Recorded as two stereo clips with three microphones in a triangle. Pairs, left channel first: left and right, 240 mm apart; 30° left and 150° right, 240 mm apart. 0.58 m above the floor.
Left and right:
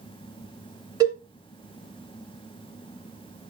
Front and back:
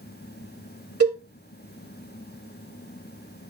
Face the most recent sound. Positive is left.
turn(degrees=-165)